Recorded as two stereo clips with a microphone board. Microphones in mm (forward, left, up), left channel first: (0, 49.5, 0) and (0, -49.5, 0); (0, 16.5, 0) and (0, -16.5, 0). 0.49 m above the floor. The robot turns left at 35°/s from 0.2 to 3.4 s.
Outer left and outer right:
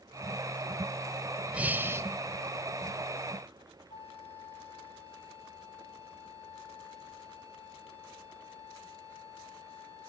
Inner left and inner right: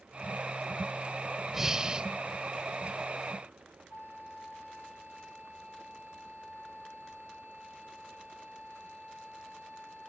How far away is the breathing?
About 0.7 m.